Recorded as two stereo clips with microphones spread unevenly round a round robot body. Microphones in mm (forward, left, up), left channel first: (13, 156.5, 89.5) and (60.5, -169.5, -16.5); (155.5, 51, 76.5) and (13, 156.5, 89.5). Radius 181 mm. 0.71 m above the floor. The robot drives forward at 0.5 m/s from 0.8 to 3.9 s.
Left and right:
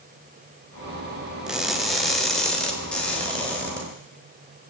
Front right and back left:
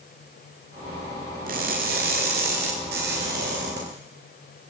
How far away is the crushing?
About 1.1 m.